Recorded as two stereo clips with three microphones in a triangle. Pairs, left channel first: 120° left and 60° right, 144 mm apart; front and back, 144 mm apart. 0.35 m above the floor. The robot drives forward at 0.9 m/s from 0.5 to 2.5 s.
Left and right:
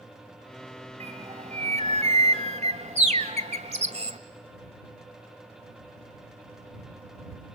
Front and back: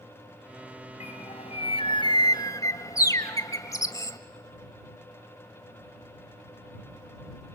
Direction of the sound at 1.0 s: 25° right.